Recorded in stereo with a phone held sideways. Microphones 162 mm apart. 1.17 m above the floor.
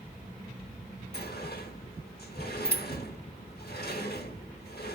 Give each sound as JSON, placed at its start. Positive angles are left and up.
{"t": 1.1, "sound": "a sliding door", "side_deg": 80, "distance_m": 4.0}